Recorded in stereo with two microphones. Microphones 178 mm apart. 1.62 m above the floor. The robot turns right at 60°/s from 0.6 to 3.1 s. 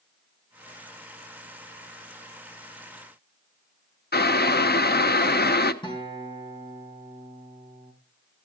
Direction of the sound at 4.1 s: 70° left (ahead or behind).